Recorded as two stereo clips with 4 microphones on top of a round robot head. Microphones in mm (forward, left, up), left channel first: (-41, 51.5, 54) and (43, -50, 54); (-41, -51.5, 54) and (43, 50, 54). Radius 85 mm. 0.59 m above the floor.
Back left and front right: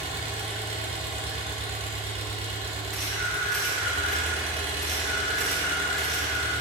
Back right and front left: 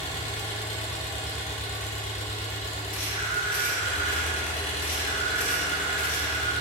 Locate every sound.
0.0 s an engine running: 90° right, 2 m
2.9 s a camera shutter: 140° right, 3 m